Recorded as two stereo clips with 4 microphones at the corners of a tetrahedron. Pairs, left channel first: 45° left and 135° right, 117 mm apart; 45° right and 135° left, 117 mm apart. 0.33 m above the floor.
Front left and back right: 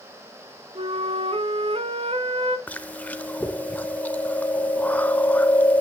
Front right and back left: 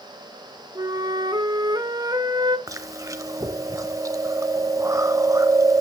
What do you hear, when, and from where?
0.8 s a flute: 170° right, 0.8 m
2.7 s chewing: 110° left, 0.7 m